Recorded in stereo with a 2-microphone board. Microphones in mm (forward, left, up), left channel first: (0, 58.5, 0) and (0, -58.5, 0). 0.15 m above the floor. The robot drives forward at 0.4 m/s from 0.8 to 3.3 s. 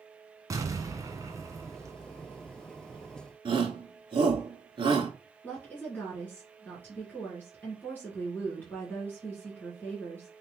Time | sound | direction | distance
0.5 | an explosion | 30° right (ahead or behind) | 1.0 m
3.5 | a shout | 45° right (ahead or behind) | 1.7 m
5.4 | a woman speaking | 15° left (ahead or behind) | 2.0 m